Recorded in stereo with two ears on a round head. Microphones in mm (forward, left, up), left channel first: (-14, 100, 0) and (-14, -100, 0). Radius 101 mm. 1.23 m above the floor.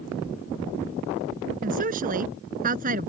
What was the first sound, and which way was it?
A woman speaking, 35° right (ahead or behind).